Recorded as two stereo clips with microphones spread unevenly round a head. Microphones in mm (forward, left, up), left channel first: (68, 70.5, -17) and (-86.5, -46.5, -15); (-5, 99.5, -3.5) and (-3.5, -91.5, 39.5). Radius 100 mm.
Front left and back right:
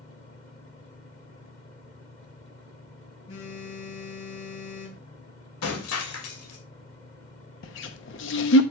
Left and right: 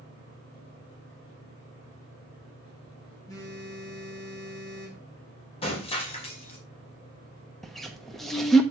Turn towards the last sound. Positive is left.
turn(degrees=5)